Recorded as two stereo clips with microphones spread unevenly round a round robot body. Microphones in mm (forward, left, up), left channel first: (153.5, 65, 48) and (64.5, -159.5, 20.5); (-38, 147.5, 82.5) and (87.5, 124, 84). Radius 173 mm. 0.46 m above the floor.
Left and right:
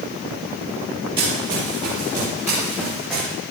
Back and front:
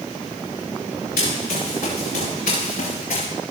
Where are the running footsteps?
170° left, 6.5 m; by 3.3 s 155° left, 5 m.